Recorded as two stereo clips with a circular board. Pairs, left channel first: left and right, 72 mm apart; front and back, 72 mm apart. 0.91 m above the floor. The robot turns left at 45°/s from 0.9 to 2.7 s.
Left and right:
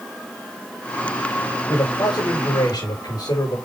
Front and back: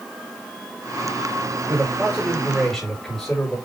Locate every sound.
1.7 s a man speaking: 130° left, 5 m; by 3.6 s 85° left, 5 m